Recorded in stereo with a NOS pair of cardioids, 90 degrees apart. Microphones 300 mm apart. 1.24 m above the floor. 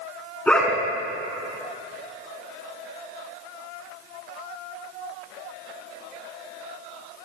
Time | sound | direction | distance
0.5 | a dog barking | 5° left | 7 m